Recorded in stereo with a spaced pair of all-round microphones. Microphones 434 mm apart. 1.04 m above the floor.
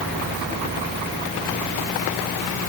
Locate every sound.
Only background noise.